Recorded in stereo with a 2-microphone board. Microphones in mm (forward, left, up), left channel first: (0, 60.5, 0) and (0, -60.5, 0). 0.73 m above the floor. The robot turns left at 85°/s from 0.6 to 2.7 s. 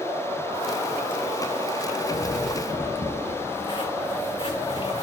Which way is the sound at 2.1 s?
70° left (ahead or behind).